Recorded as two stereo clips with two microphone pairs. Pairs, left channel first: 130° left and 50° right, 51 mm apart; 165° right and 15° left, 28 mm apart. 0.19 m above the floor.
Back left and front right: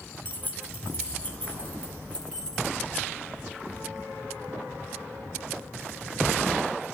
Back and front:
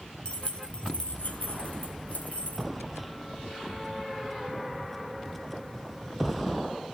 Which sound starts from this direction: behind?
Keys jangling, at 0.2 s.